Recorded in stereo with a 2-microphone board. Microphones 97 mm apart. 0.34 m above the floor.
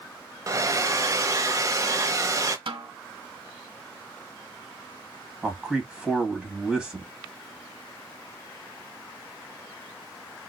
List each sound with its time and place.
0.5 s a hair dryer: 35° right (ahead or behind), 0.7 m
2.7 s a snare drum: 65° right (ahead or behind), 1.2 m
5.4 s a man speaking: 10° right (ahead or behind), 2 m